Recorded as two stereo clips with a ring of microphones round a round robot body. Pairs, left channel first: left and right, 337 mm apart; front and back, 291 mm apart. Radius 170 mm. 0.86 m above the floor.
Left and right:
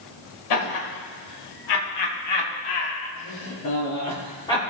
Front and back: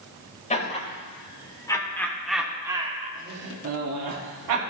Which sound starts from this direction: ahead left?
Laughter, at 0.5 s.